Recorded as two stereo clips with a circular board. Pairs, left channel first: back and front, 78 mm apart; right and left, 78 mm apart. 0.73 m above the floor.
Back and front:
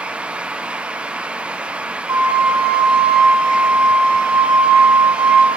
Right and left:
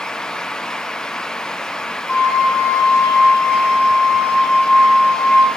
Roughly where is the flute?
Ahead right.